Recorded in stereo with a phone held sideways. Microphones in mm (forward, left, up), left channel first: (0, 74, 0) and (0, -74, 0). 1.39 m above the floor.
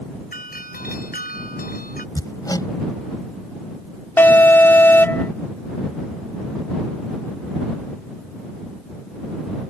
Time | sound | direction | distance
0.3 | a doorbell | 80° left | ?
2.1 | hammering | 25° left (ahead or behind) | ?
4.2 | an alarm | 15° left (ahead or behind) | ?